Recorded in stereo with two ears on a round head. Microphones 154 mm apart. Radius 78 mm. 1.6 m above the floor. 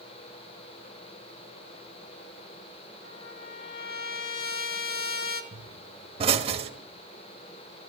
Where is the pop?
35° right (ahead or behind), 1.3 m.